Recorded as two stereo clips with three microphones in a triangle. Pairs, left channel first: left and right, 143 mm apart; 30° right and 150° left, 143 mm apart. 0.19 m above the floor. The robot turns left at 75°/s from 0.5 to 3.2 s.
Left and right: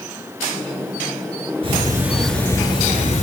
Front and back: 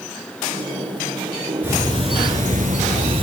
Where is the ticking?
135° right, 3.5 m; by 3.2 s 110° left, 3.5 m.